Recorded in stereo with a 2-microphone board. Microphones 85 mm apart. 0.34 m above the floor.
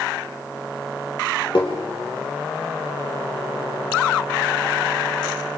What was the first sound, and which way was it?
Tapping, 60° left (ahead or behind).